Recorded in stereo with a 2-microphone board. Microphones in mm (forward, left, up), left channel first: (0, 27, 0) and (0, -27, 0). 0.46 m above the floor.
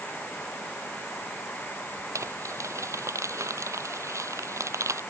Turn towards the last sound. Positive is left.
turn(degrees=-65)  # may be behind; listen again after turning